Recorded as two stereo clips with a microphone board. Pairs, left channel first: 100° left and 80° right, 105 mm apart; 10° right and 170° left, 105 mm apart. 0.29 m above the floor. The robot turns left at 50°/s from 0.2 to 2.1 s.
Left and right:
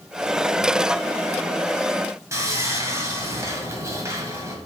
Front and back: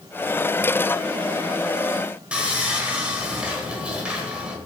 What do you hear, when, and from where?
2.3 s sawing: 115° right, 1.5 m